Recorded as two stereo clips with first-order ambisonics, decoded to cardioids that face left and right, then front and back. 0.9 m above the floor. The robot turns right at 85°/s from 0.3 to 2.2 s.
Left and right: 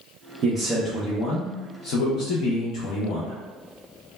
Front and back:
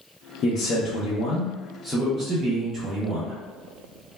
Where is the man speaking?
45° right, 0.5 m; by 3.3 s 110° left, 0.5 m.